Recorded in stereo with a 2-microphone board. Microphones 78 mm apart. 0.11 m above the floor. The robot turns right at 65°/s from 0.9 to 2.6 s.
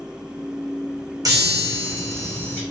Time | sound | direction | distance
1.2 | a chime | 55° right | 3.5 m